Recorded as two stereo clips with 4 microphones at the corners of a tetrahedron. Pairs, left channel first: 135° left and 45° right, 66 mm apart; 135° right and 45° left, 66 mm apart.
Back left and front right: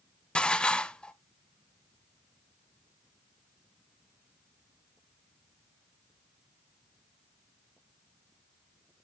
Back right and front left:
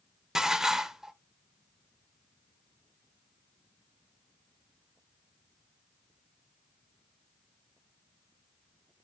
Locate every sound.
0.3 s dishes clattering: 110° left, 0.5 m